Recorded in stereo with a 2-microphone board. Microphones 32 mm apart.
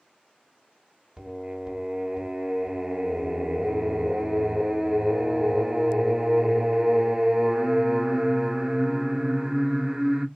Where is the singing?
20° right (ahead or behind), 1.0 m.